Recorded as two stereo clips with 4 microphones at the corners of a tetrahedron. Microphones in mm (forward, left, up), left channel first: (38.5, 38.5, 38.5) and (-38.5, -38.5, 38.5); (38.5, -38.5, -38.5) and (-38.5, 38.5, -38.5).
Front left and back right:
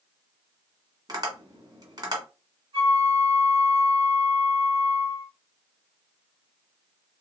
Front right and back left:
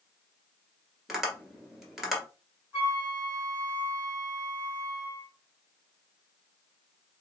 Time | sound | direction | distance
1.1 | tapping | 140° right | 1.5 m
2.7 | a flute | 160° right | 2.5 m